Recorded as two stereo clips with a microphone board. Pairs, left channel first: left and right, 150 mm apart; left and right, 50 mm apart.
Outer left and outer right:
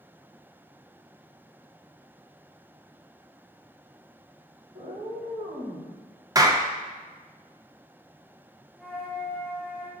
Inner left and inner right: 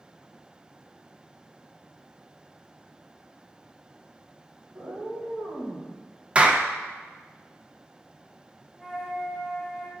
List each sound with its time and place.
4.7 s a cat meowing: 45° right (ahead or behind), 2 m; by 5.9 s 35° right (ahead or behind), 2.5 m
6.3 s a clap: 25° right (ahead or behind), 0.5 m
8.8 s a flute: 5° right (ahead or behind), 1.7 m